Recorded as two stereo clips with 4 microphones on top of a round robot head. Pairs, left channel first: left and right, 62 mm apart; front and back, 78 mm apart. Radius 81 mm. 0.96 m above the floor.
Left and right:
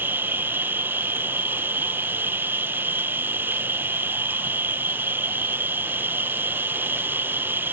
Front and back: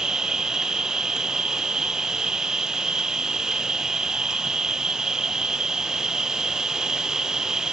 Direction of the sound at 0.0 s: 105° right.